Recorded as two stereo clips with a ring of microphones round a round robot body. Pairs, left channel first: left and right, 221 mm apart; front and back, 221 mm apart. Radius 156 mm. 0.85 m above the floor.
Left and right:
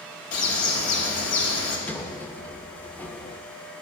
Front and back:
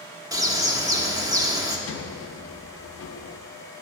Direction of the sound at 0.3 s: 105° left.